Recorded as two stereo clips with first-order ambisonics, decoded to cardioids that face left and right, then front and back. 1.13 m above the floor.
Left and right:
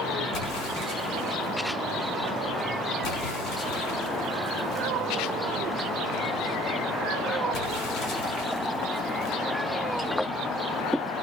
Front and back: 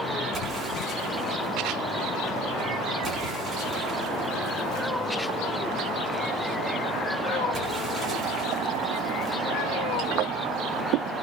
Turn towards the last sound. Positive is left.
turn(degrees=115)